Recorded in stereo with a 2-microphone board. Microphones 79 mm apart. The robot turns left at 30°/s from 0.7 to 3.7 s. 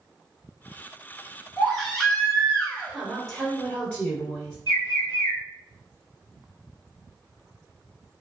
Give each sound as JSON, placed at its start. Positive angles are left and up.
{"t": 1.6, "sound": "a baby crying", "azimuth_deg": 180, "distance_m": 1.6}
{"t": 2.9, "sound": "a woman speaking", "side_deg": -5, "distance_m": 1.7}
{"t": 4.7, "sound": "a bird", "side_deg": 55, "distance_m": 1.4}